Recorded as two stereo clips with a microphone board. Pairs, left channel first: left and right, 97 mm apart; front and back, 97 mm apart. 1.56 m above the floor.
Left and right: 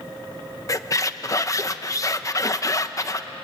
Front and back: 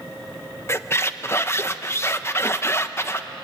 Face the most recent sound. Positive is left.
turn(degrees=50)